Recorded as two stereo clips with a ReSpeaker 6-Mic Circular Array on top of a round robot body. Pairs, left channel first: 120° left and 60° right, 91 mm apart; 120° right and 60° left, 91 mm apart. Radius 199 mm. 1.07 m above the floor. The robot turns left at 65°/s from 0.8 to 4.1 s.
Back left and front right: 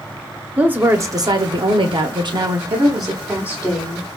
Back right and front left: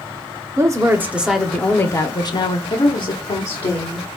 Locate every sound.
0.6 s a woman speaking: 10° left, 0.9 m; by 2.6 s 110° right, 0.9 m
2.7 s a woman speaking: 85° right, 1.3 m; by 4.2 s 175° right, 1.3 m